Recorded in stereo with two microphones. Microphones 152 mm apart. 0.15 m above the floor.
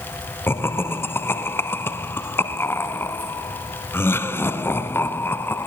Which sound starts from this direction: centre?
Laughter, at 0.5 s.